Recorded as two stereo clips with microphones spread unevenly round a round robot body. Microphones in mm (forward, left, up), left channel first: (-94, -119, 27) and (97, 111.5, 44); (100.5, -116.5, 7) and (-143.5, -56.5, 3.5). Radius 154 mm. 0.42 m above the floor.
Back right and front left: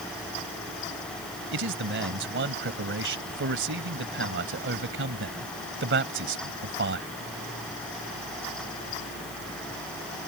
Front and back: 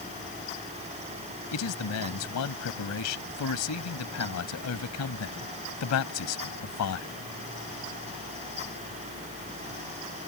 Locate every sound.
1.5 s a man speaking: straight ahead